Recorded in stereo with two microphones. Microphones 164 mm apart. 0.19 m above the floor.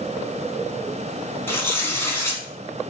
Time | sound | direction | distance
1.5 | tearing paper | 15° left (ahead or behind) | 1.8 m